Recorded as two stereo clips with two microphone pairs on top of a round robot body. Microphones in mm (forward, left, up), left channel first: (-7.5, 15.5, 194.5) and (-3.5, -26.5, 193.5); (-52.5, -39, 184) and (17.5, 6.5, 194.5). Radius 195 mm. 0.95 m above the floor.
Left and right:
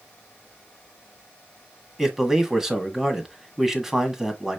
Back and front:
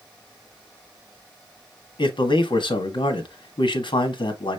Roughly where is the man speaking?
Behind.